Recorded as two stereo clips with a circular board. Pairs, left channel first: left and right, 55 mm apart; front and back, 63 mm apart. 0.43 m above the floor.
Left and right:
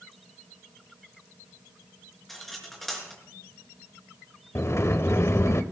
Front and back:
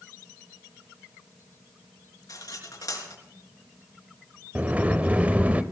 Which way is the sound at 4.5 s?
115° left.